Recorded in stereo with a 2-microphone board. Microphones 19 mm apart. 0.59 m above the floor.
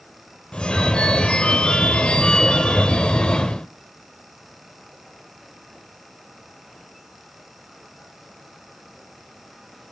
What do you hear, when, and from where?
0.5 s a phone ringing: 60° left (ahead or behind), 1.1 m